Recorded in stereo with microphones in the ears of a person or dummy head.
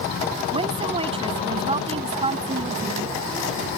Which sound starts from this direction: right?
A woman speaking, at 0.5 s.